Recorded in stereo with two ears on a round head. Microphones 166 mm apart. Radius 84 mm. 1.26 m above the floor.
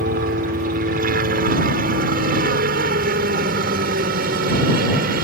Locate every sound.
0.0 s a helicopter: 45° right (ahead or behind); by 5.2 s 50° right (ahead or behind)